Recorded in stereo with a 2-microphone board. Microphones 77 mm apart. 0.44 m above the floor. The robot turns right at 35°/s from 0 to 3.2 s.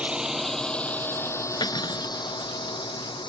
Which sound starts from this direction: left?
Cutlery clinking, at 1.6 s.